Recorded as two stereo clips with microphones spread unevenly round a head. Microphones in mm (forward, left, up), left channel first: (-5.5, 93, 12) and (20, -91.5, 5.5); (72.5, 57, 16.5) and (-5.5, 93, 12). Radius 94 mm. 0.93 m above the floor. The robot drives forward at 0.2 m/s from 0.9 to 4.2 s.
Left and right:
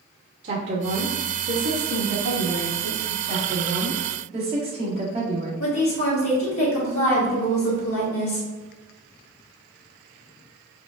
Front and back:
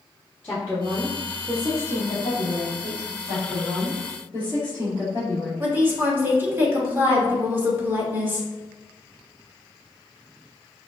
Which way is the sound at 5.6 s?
90° left.